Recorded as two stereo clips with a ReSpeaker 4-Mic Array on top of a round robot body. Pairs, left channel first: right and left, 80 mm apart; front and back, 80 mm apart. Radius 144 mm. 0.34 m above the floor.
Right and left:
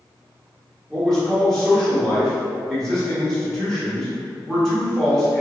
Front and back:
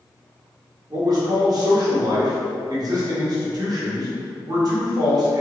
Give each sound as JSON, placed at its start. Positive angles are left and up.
{"t": 0.9, "sound": "a man speaking", "azimuth_deg": -170, "distance_m": 1.2}